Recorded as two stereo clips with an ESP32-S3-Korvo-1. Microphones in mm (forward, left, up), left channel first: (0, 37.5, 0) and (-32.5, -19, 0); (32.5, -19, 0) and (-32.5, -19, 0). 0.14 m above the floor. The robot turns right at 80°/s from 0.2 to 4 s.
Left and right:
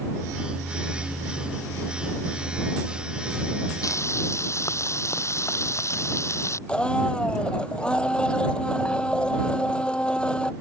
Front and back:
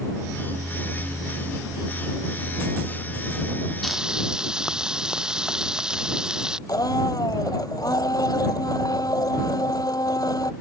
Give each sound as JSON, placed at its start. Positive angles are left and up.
{"t": 3.8, "sound": "frying", "azimuth_deg": 85}
{"t": 6.7, "sound": "a blender", "azimuth_deg": -15}